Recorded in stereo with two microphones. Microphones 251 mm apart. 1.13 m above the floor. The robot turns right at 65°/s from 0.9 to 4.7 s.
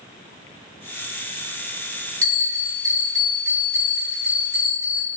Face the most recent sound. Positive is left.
turn(degrees=85)